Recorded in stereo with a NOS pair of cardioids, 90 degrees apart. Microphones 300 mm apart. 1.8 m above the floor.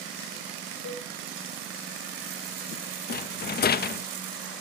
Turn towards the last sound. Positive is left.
turn(degrees=35)